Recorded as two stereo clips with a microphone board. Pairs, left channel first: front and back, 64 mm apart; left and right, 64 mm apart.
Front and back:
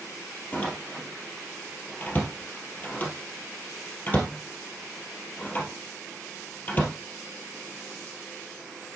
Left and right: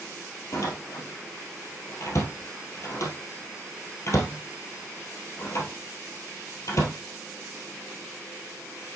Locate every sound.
0.5 s a door slam: 60° left, 1.9 m